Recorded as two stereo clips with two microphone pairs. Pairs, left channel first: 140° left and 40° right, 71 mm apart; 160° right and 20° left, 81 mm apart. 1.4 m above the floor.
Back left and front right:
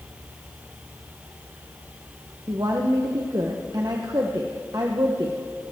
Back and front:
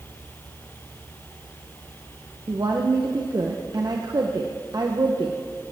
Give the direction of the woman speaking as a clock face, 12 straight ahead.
12 o'clock.